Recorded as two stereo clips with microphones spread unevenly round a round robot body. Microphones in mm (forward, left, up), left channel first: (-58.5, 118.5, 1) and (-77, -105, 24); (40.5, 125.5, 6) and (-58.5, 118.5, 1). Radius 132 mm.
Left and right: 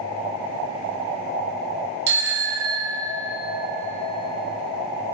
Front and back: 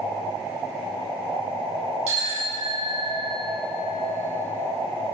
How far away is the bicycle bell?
About 5.5 m.